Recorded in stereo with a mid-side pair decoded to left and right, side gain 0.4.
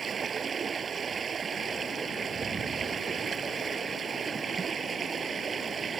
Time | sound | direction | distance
0.0 | running water | 40° right | ?